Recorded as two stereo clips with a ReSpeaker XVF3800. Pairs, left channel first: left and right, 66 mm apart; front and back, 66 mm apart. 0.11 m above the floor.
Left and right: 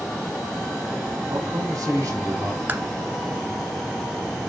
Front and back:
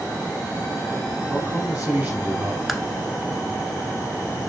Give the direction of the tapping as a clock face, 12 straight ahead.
3 o'clock.